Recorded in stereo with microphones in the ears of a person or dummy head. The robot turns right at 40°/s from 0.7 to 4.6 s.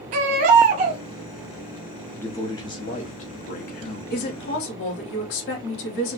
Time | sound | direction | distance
0.1 | a baby crying | 50° right (ahead or behind) | 1.1 m
2.2 | a man speaking | 15° left | 1.0 m
4.1 | a woman speaking | 60° left (ahead or behind) | 1.5 m